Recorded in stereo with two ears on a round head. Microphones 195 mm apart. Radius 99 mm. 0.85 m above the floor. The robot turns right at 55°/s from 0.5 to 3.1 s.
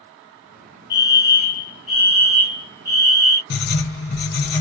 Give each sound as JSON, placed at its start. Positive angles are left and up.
{"t": 0.9, "sound": "a fire alarm", "azimuth_deg": 85, "distance_m": 1.8}
{"t": 3.5, "sound": "writing", "side_deg": 50, "distance_m": 1.3}